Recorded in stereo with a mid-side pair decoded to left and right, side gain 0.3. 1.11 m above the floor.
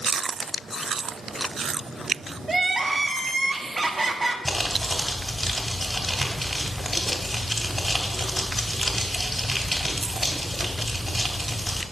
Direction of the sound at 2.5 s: 30° right.